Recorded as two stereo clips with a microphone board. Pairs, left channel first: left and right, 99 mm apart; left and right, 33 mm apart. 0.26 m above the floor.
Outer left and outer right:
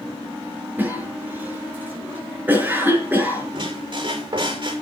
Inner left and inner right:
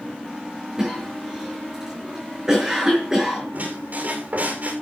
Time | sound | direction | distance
0.8 | a cough | 20° right (ahead or behind) | 5 m
3.5 | a squeak | 50° right (ahead or behind) | 6 m